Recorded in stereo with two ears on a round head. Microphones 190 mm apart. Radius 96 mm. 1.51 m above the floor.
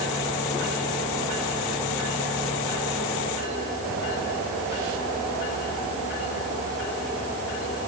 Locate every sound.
Only background noise.